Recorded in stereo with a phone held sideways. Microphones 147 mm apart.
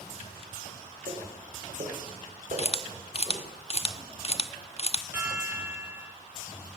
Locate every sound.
1.1 s footsteps: 65° right (ahead or behind), 6.5 m; by 3.5 s 60° right (ahead or behind), 9 m
2.6 s a camera shutter: 40° left (ahead or behind), 1.0 m
5.1 s a chime: 15° right (ahead or behind), 8.5 m